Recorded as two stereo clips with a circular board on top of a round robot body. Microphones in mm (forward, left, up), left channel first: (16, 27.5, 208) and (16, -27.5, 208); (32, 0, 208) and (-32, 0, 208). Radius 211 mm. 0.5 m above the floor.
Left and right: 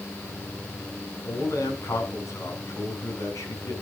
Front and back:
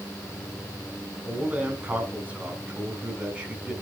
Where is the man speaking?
115° left, 3.5 m.